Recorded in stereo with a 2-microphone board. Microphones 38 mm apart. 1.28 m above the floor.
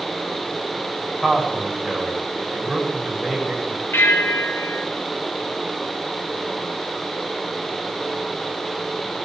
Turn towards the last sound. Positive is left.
turn(degrees=80)